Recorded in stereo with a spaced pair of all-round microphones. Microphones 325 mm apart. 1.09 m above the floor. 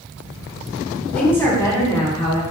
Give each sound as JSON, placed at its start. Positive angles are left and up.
{"t": 1.1, "sound": "a woman speaking", "side_deg": 5, "distance_m": 3.0}